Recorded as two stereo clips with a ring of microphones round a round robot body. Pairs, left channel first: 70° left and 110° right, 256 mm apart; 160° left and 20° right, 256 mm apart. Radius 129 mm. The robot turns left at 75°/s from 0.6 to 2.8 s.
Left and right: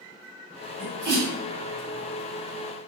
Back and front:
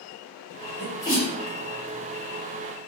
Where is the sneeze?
105° right, 2.0 m; by 1.3 s 150° right, 2.0 m.